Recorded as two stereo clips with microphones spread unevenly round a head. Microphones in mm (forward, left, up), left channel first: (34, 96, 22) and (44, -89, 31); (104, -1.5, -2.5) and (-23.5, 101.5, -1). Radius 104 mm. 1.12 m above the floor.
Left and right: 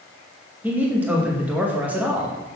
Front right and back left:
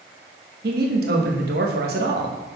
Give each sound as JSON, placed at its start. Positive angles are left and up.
{"t": 0.6, "sound": "a man speaking", "azimuth_deg": -170, "distance_m": 1.0}